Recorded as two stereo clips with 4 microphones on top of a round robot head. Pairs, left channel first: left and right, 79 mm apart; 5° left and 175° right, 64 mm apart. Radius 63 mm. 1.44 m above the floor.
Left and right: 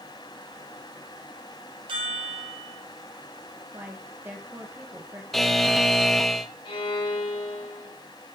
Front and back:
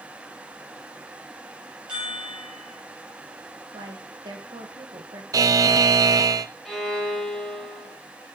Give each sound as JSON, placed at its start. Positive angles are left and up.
{"t": 1.9, "sound": "a chime", "azimuth_deg": -95, "distance_m": 3.0}
{"t": 3.7, "sound": "a woman speaking", "azimuth_deg": -160, "distance_m": 1.7}
{"t": 5.3, "sound": "a buzzer", "azimuth_deg": 180, "distance_m": 0.7}
{"t": 6.7, "sound": "a violin", "azimuth_deg": 90, "distance_m": 3.5}